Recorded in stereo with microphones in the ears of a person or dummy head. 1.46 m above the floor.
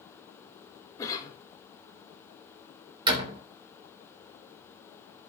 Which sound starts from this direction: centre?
A cough, at 1.0 s.